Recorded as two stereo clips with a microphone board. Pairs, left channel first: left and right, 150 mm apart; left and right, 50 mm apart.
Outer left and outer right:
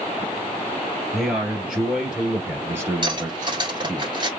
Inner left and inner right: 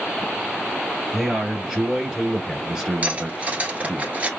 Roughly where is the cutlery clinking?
Right.